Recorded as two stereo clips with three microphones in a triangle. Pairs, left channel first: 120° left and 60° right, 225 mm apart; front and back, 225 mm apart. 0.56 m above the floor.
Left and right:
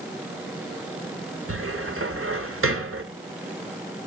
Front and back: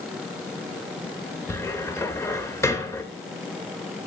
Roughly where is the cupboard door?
Right.